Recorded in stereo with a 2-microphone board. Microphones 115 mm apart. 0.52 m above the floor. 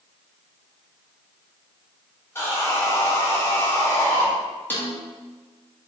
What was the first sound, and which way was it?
Sawing, 20° left (ahead or behind).